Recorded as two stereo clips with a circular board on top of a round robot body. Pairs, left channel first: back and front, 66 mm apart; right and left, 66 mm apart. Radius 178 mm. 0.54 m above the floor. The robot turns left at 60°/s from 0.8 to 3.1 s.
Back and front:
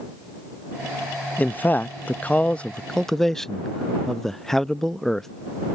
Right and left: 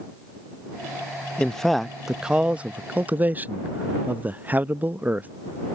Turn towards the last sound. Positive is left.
turn(degrees=105)